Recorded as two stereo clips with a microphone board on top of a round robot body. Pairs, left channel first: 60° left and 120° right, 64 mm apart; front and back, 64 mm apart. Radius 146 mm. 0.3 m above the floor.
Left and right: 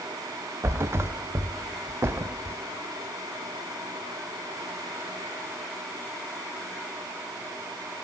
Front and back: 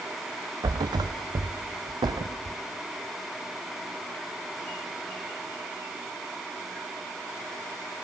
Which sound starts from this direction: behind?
A thud, at 0.6 s.